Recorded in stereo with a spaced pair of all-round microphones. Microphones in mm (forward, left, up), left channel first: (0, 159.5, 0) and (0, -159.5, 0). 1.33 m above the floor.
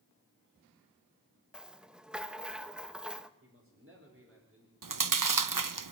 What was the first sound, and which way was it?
A rattle, centre (ahead or behind).